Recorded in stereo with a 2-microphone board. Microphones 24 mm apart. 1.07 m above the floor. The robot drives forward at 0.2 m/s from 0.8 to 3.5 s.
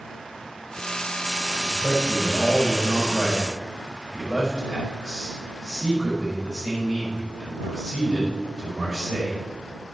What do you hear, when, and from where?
1.6 s a man speaking: 15° left (ahead or behind), 4.5 m